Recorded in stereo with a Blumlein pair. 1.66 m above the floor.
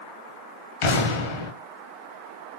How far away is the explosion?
About 0.7 m.